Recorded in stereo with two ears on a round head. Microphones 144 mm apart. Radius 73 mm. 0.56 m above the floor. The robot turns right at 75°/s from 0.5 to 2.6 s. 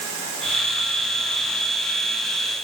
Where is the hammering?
I don't hear hammering.